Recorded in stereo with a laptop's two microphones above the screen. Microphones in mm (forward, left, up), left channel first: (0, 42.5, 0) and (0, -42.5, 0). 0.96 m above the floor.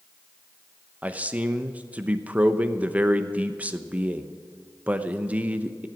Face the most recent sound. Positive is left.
turn(degrees=-15)  # may be behind; listen again after turning